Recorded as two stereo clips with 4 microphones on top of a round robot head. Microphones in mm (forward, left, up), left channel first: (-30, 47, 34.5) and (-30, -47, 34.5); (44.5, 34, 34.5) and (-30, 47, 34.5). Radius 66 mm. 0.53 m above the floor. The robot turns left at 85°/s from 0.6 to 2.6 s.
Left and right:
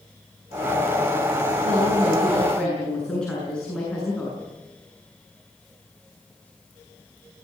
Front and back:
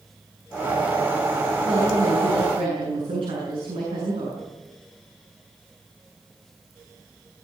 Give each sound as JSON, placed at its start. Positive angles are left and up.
{"t": 1.6, "sound": "a woman speaking", "azimuth_deg": -110, "distance_m": 7.5}